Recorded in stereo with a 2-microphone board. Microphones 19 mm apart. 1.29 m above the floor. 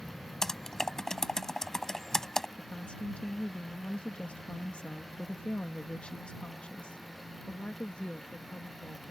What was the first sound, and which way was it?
Typing on a keyboard, 25° left (ahead or behind).